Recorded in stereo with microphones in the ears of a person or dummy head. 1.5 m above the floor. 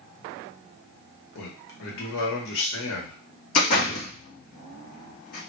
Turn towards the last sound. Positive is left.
turn(degrees=55)  # may be behind; listen again after turning